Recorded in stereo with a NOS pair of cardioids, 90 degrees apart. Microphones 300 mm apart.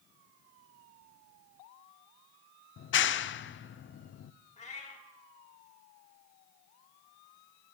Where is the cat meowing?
25° left, 2.5 m.